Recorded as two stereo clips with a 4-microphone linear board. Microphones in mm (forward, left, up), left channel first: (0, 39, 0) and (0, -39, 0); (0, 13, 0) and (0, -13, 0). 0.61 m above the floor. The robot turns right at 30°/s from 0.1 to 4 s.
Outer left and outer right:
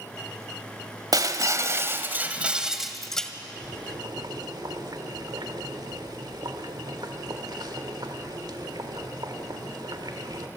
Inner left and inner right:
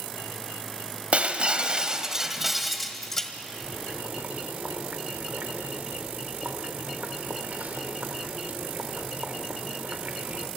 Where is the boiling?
65° right (ahead or behind), 1.9 m.